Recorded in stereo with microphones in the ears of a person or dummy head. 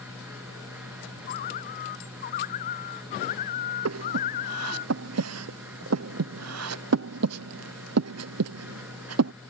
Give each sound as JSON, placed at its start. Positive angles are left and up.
{"t": 0.0, "sound": "a fan", "side_deg": -10}
{"t": 1.3, "sound": "a bird", "side_deg": 50}
{"t": 3.9, "sound": "breathing", "side_deg": -85}